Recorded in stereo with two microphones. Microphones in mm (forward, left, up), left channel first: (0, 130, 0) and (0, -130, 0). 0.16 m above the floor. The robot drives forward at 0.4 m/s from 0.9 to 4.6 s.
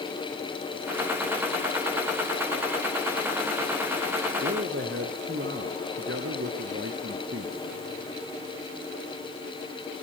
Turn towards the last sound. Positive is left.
turn(degrees=-50)  # may be behind; listen again after turning